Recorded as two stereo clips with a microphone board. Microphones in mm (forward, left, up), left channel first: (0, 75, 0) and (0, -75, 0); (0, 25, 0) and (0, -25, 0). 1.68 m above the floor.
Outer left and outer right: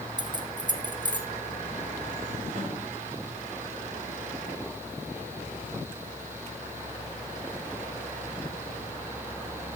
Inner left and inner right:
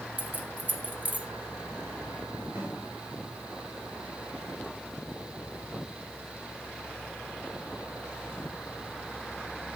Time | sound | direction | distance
0.2 | keys jangling | 30° right (ahead or behind) | 0.8 m
2.5 | a snare drum | 65° right (ahead or behind) | 4 m